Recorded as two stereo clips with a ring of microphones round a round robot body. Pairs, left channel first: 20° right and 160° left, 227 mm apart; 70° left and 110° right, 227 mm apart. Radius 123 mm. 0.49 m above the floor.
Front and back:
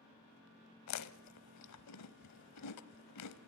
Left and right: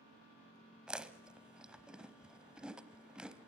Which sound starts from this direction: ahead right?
Chewing, at 0.9 s.